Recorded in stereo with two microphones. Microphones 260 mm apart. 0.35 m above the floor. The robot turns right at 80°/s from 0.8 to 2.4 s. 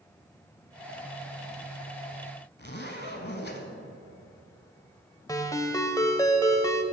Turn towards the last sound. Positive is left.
turn(degrees=15)  # may be behind; listen again after turning